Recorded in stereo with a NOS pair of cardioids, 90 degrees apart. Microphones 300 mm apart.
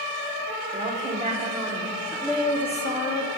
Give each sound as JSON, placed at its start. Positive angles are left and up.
{"t": 0.7, "sound": "a woman speaking", "azimuth_deg": -30, "distance_m": 1.6}